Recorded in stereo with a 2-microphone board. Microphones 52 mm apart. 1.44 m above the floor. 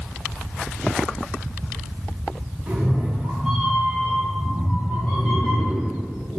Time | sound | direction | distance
2.7 | a cat meowing | 25° right (ahead or behind) | 2 m